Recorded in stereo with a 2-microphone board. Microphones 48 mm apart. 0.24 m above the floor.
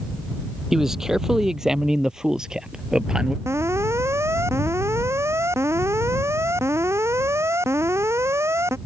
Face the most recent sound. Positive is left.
turn(degrees=-70)  # may be behind; listen again after turning